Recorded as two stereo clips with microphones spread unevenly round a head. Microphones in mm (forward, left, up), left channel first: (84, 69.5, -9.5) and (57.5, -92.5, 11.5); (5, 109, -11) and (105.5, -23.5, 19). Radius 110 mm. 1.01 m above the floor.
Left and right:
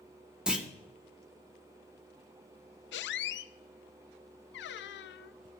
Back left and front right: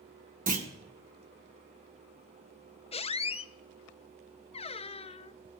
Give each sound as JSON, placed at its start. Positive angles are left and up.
{"t": 0.5, "sound": "a clunk", "azimuth_deg": -15, "distance_m": 1.4}
{"t": 2.9, "sound": "a squeak", "azimuth_deg": 70, "distance_m": 0.5}